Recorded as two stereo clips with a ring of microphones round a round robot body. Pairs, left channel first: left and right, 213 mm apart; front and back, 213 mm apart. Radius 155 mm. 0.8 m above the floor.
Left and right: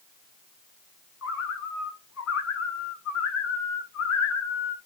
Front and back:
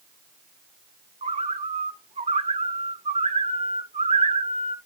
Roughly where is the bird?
Behind left.